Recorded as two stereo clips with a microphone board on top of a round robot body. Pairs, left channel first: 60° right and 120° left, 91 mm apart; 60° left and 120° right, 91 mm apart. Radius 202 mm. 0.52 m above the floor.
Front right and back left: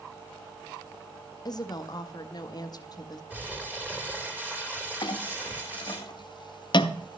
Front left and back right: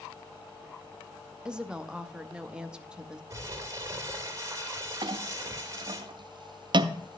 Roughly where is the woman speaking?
Ahead right.